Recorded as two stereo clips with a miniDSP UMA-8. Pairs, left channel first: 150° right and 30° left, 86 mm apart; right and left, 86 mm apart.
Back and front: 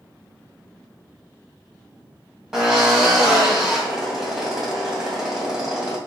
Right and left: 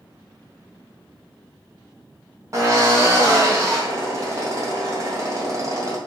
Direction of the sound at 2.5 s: 110° left.